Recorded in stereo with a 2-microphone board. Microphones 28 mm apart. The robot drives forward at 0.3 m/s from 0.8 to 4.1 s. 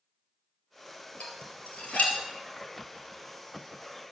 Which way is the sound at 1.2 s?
50° left (ahead or behind).